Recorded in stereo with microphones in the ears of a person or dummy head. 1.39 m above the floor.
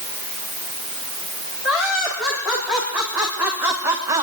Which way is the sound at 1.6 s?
Centre (ahead or behind).